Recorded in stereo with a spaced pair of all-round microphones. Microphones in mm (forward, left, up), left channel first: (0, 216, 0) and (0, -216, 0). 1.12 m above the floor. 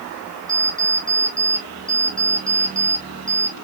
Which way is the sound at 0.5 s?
25° right (ahead or behind).